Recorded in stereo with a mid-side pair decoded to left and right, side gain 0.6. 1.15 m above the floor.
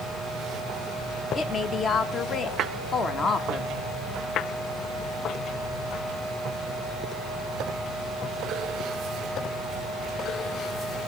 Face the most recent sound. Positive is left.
turn(degrees=40)